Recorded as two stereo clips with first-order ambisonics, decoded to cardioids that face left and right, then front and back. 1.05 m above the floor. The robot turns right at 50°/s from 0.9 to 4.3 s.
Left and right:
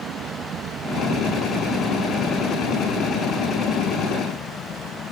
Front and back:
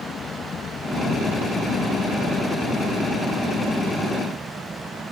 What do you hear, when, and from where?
0.0 s an aircraft: 55° right; by 5.1 s 115° left